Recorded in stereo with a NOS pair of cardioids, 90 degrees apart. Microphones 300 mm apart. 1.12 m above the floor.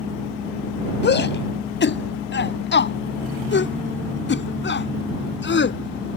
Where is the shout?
40° left.